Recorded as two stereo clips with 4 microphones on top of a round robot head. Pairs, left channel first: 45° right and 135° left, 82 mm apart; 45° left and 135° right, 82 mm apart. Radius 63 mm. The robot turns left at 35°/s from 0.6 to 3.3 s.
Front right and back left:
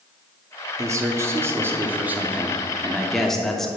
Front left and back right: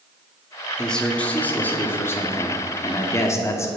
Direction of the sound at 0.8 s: 120° left.